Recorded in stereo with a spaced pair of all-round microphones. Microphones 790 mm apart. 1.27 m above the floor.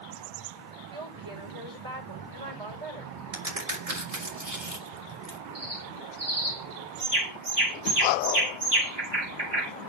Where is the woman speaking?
30° right (ahead or behind), 4.5 m.